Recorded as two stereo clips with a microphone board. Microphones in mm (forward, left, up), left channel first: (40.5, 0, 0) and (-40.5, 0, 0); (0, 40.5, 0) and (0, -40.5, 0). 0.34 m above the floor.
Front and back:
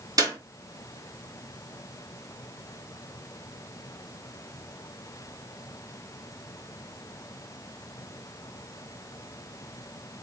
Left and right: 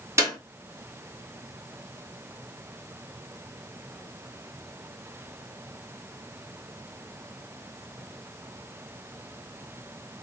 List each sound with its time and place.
0.2 s a clap: 145° right, 2.5 m